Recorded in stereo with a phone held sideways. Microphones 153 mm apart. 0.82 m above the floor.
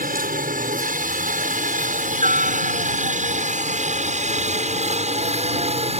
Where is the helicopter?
60° right (ahead or behind); by 6.0 s 40° right (ahead or behind).